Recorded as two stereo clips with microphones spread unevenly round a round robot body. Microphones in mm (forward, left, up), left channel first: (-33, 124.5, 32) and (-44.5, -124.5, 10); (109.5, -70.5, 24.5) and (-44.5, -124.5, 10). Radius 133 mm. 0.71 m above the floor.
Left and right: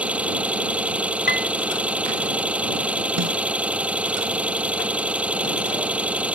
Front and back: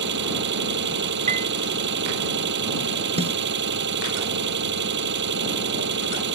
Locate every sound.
0.0 s an engine running: straight behind
1.3 s a piano: 140° left
3.2 s a snare drum: 110° right